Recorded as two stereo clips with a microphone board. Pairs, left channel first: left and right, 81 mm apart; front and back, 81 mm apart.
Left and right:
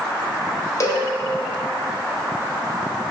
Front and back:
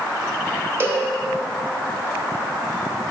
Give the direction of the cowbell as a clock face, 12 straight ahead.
8 o'clock.